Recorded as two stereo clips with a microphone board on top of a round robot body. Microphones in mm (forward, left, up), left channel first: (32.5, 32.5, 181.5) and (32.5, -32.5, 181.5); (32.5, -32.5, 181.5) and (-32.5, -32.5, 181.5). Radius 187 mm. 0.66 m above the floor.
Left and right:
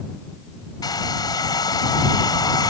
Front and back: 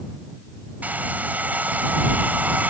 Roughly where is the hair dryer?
Behind left.